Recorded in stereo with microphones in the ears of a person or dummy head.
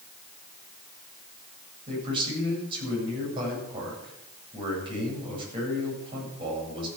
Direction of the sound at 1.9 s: 30° right (ahead or behind).